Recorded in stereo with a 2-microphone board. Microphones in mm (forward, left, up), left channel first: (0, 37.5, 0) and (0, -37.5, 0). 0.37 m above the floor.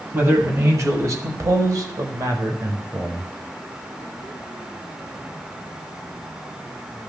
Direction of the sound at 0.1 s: 35° right (ahead or behind).